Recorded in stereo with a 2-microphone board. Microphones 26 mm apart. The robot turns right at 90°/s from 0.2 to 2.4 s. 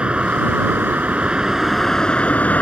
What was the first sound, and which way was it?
A vehicle, 140° right.